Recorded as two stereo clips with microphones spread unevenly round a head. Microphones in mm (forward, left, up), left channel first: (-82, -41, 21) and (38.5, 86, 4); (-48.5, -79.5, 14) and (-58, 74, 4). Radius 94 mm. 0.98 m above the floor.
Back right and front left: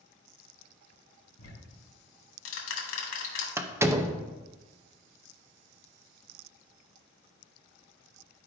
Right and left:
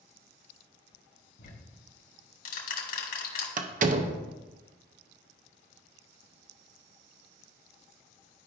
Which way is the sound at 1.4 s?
110° right.